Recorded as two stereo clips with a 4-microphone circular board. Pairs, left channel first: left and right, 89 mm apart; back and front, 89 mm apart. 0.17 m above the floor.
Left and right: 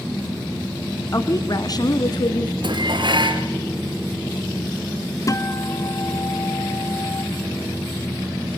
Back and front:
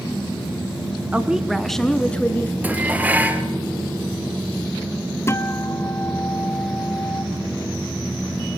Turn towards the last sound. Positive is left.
turn(degrees=130)